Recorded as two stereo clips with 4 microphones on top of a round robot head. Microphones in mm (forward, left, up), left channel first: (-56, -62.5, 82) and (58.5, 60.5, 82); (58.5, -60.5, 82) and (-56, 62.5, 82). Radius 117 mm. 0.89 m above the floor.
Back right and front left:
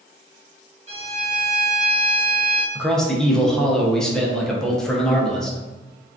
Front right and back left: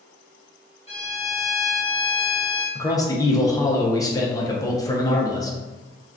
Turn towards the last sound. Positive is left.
turn(degrees=-55)